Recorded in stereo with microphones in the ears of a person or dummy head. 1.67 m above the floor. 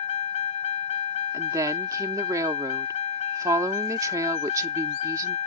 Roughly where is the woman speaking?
Centre.